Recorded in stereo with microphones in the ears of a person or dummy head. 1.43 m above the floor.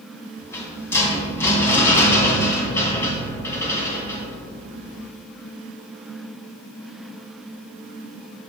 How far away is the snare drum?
No snare drum in this recording.